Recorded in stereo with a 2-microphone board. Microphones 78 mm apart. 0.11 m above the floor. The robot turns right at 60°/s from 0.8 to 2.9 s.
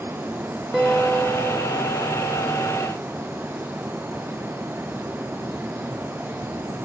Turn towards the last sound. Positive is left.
turn(degrees=120)